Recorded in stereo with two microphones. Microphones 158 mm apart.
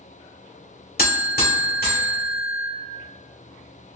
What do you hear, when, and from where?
1.0 s a buzzer: 80° left, 1.9 m